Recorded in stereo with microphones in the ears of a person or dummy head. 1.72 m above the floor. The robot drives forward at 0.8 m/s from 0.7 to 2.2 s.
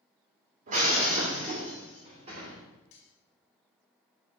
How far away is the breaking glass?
About 2 m.